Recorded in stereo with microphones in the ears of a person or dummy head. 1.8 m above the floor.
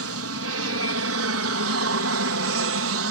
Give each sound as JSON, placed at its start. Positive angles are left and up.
{"t": 0.0, "sound": "an aircraft", "side_deg": -70}